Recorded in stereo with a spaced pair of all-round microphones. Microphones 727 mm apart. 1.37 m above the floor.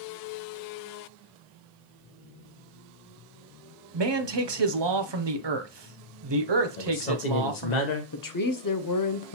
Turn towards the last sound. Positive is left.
turn(degrees=30)  # may be behind; listen again after turning